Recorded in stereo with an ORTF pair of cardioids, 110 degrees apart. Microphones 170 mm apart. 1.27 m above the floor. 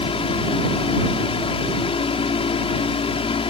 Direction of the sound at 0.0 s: 35° left.